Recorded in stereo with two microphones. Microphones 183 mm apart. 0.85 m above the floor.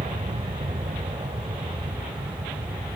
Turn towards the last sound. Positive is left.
turn(degrees=-25)  # may be behind; listen again after turning